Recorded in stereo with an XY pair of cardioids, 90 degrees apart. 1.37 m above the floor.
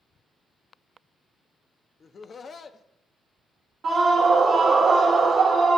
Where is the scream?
60° right, 1.0 m.